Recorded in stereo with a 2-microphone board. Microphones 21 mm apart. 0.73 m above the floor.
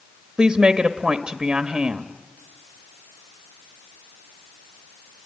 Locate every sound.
0.4 s a woman speaking: 30° right (ahead or behind), 1.1 m